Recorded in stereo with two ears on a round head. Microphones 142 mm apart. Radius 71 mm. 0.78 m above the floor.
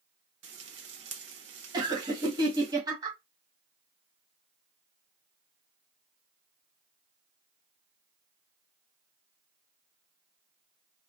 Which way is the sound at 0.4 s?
85° right.